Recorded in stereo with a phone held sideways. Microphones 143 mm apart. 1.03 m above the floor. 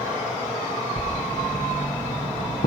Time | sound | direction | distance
1.0 | writing | 65° left (ahead or behind) | 5.5 m